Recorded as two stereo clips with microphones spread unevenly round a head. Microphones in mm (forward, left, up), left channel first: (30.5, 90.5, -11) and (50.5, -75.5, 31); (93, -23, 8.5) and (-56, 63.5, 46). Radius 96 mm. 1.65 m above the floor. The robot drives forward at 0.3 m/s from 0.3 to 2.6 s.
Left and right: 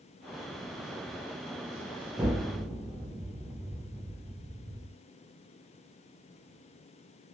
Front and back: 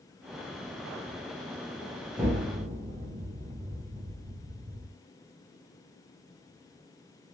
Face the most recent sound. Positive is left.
turn(degrees=-155)